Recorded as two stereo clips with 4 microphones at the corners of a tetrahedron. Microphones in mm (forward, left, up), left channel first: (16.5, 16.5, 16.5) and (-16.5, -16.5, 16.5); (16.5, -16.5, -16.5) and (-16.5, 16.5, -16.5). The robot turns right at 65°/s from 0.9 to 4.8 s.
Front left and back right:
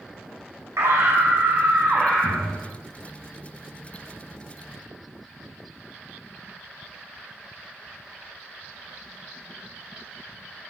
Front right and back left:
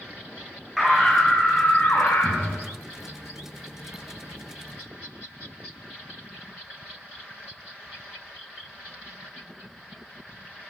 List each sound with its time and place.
0.8 s a scream: 140° right, 5 m; by 2.6 s 30° right, 5 m